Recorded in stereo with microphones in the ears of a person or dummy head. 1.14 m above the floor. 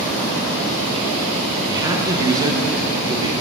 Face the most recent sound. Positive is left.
turn(degrees=-20)  # may be behind; listen again after turning